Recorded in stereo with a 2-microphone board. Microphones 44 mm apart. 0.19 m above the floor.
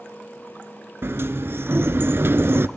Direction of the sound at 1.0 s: 65° right (ahead or behind).